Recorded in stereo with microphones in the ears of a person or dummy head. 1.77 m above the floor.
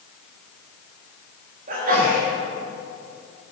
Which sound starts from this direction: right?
A sneeze, at 1.7 s.